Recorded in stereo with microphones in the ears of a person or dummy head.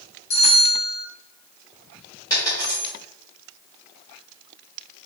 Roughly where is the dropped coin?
Left.